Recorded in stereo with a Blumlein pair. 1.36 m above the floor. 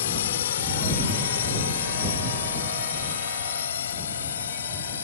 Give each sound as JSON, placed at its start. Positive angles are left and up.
{"t": 0.0, "sound": "a drone", "azimuth_deg": 60}